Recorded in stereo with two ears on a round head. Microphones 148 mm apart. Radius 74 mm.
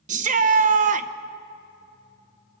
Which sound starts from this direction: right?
A shout, at 0.1 s.